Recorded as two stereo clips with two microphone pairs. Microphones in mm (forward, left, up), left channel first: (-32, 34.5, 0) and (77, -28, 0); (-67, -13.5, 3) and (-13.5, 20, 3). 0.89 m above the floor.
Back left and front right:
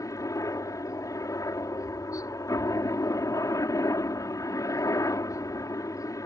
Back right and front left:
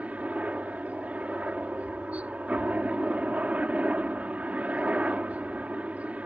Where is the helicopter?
95° left.